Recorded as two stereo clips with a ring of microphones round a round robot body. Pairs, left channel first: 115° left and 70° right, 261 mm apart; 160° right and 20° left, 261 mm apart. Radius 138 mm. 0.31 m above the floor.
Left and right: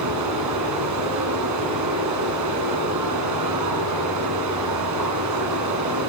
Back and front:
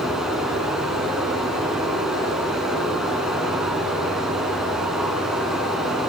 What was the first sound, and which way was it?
Running water, 65° right.